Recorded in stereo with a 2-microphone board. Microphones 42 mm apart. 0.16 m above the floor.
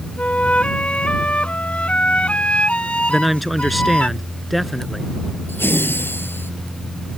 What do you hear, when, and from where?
0.2 s a flute: 30° left (ahead or behind)
3.1 s a man speaking: centre (ahead or behind)
5.5 s laughter: 60° left (ahead or behind)